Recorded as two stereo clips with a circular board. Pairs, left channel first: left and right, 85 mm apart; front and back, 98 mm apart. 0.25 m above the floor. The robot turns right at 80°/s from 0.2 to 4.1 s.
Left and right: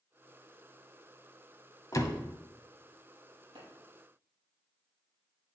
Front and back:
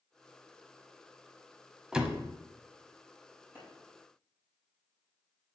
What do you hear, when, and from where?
1.9 s a door slam: 100° left, 1.0 m; by 2.2 s 125° left, 1.0 m
3.5 s a clap: 110° right, 5 m; by 3.6 s 100° right, 5 m